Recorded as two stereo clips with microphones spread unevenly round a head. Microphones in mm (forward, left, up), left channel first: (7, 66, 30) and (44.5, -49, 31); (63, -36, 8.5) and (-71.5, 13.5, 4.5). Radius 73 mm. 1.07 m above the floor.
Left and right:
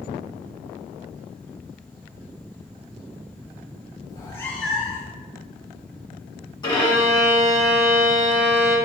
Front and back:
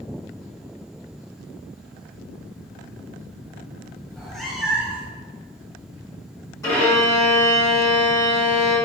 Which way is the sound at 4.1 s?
60° left.